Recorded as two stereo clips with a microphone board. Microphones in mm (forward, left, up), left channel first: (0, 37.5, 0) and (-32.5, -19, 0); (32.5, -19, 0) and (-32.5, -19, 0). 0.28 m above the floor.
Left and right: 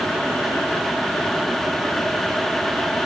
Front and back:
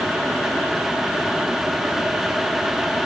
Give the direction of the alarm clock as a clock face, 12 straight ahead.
No alarm clock in this recording.